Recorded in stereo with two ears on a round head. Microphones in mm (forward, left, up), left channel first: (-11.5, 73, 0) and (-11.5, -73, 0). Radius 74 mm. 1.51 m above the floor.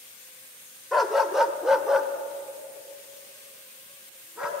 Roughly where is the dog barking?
Centre.